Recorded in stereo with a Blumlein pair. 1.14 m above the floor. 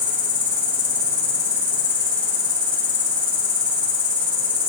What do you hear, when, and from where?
0.0 s an insect: 60° left, 3 m